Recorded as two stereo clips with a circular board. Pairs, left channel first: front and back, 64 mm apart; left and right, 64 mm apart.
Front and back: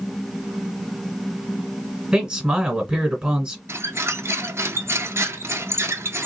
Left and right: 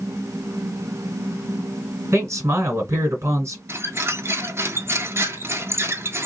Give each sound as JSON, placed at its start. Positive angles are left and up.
{"t": 2.1, "sound": "a man speaking", "azimuth_deg": -110, "distance_m": 1.6}
{"t": 3.7, "sound": "a squeak", "azimuth_deg": -135, "distance_m": 0.6}